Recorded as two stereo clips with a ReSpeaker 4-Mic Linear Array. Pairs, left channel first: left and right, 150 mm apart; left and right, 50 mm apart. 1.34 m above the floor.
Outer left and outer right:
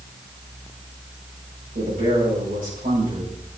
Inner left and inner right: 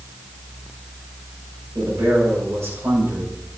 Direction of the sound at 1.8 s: 85° right.